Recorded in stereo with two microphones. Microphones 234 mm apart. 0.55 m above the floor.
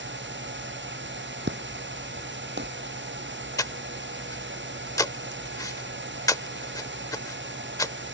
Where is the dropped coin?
No dropped coin in this recording.